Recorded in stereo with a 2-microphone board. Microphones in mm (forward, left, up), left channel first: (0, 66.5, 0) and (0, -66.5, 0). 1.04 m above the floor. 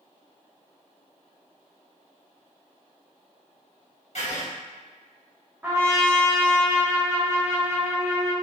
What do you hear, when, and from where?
4.2 s writing: 60° left (ahead or behind), 0.9 m
5.6 s a trumpet: 15° right (ahead or behind), 0.8 m